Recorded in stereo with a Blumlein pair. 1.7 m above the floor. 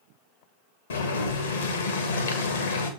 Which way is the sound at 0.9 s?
65° left.